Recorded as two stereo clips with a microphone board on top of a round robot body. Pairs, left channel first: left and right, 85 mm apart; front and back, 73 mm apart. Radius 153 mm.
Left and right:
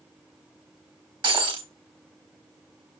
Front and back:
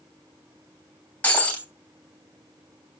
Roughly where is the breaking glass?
Right.